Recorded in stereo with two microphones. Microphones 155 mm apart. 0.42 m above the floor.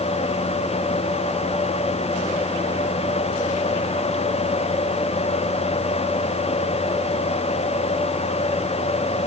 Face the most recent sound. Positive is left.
No sound to turn to.